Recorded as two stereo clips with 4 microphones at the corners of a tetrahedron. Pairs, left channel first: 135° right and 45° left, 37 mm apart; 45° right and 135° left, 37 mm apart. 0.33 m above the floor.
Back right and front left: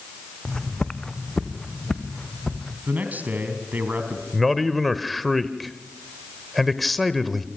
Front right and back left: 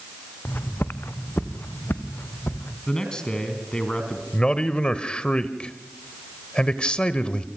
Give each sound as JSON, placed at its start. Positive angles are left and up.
{"t": 0.5, "sound": "footsteps", "azimuth_deg": -65, "distance_m": 1.2}
{"t": 2.9, "sound": "a man speaking", "azimuth_deg": 20, "distance_m": 3.0}
{"t": 4.3, "sound": "a man speaking", "azimuth_deg": -45, "distance_m": 1.0}